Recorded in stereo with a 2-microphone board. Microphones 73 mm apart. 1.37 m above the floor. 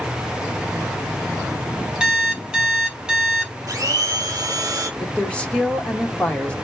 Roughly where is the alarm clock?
Centre.